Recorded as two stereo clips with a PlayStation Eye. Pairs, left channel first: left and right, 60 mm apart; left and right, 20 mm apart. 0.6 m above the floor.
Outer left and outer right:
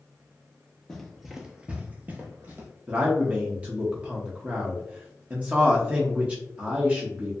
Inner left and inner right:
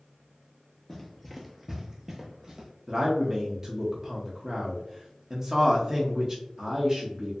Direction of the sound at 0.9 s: 10° left (ahead or behind).